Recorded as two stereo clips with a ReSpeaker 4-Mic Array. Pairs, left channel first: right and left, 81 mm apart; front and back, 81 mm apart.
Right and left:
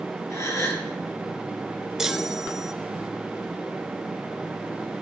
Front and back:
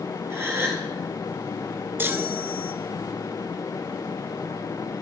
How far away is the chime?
About 0.5 m.